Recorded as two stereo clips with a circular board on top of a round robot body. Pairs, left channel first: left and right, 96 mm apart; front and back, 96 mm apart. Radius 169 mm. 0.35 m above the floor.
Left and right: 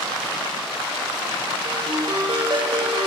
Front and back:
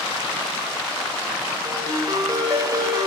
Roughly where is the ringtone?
Behind right.